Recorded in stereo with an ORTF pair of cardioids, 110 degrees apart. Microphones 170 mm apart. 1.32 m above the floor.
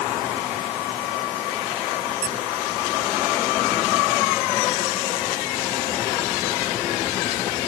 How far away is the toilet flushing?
No toilet flushing in this recording.